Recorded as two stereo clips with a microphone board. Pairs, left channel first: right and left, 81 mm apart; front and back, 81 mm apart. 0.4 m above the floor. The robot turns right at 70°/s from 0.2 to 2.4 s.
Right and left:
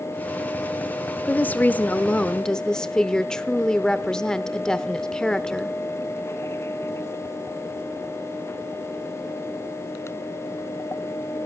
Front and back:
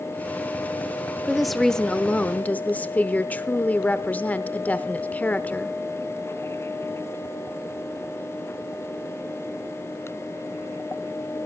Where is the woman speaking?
105° right, 0.8 m; by 5.8 s 25° right, 0.8 m.